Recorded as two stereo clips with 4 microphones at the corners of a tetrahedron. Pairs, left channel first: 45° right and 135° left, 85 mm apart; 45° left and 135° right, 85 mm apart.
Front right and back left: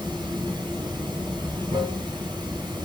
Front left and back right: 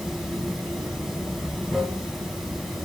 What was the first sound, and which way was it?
Running water, 140° left.